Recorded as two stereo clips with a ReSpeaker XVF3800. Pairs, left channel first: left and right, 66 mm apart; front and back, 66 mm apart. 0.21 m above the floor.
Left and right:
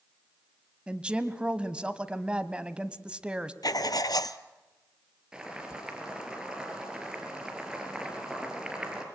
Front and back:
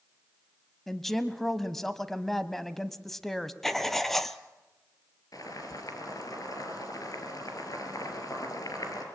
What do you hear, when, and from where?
0.9 s a woman speaking: 75° right, 1.0 m
3.6 s writing: 85° left, 0.8 m
5.3 s boiling: 10° right, 4 m